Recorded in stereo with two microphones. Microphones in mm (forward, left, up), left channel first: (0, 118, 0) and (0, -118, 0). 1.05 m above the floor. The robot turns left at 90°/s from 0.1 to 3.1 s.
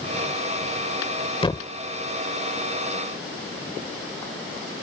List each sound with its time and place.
1.4 s a thud: 25° left (ahead or behind); by 1.7 s centre (ahead or behind)